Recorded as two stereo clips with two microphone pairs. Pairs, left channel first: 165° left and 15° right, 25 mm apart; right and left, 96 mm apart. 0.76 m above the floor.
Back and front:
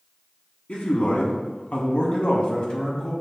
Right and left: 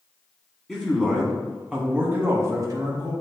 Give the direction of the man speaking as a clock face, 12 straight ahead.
6 o'clock.